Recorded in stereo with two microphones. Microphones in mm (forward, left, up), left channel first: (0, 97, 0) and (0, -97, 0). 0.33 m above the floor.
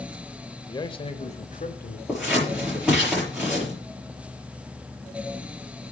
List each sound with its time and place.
0.7 s a man speaking: 20° left (ahead or behind), 0.9 m; by 2.0 s 50° left (ahead or behind), 1.3 m
2.1 s scissors: 5° right (ahead or behind), 7.5 m